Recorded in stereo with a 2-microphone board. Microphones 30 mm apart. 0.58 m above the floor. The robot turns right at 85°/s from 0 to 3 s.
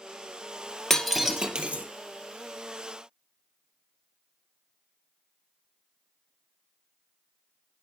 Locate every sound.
0.9 s breaking glass: 15° left (ahead or behind), 2 m; by 1.9 s 65° right (ahead or behind), 2 m